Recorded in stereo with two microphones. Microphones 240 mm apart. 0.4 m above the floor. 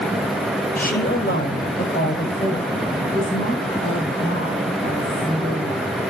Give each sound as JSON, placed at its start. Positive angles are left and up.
{"t": 0.8, "sound": "a woman speaking", "side_deg": 35, "distance_m": 2.0}